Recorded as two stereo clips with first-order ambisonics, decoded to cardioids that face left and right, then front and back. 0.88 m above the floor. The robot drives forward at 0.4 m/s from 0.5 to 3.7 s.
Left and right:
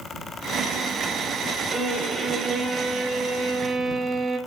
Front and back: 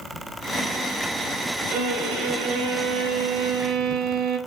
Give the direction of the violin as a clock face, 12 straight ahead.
6 o'clock.